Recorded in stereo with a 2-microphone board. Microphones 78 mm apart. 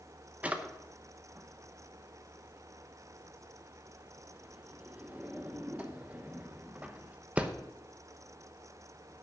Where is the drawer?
15° right (ahead or behind), 0.9 m.